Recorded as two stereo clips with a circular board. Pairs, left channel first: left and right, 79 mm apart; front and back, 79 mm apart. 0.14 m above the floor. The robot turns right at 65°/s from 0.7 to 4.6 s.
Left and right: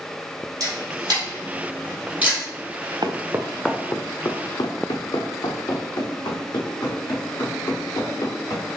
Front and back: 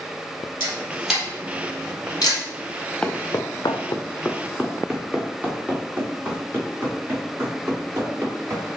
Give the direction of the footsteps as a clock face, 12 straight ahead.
3 o'clock.